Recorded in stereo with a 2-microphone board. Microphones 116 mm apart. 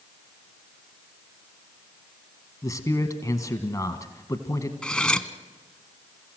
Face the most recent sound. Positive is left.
turn(degrees=5)  # may be behind; listen again after turning